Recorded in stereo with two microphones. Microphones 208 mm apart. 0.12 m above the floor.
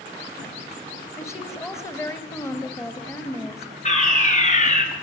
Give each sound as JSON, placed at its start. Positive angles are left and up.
{"t": 1.2, "sound": "a woman speaking", "side_deg": 15, "distance_m": 1.9}
{"t": 3.9, "sound": "a fire alarm", "side_deg": 35, "distance_m": 3.5}